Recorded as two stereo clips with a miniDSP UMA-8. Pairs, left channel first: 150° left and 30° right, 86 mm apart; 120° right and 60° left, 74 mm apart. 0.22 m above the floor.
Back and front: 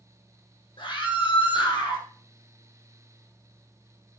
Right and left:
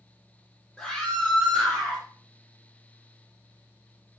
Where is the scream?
165° left, 6 m; by 2.0 s 170° left, 6.5 m.